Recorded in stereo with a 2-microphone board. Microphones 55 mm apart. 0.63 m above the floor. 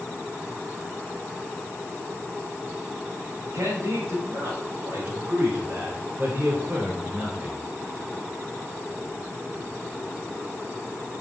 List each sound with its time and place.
3.5 s a man speaking: 65° right (ahead or behind), 4.5 m; by 7.6 s 20° right (ahead or behind), 2.5 m